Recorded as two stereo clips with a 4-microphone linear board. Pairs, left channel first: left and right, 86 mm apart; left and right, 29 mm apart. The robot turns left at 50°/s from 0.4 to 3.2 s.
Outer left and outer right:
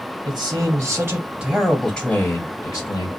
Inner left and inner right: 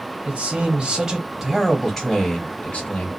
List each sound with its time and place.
0.2 s a man speaking: 115° right, 1.7 m; by 3.1 s 110° left, 1.7 m